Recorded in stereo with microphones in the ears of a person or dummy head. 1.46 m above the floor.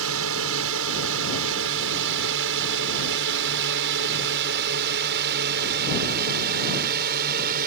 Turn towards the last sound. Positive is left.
turn(degrees=-40)  # may be behind; listen again after turning